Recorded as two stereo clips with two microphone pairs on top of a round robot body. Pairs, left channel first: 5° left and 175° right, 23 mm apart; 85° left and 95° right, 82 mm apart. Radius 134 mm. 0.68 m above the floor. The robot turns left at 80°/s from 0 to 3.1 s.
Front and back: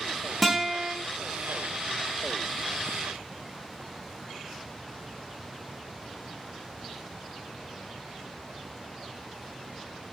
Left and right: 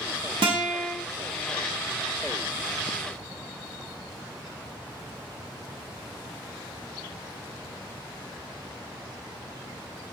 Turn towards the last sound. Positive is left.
turn(degrees=65)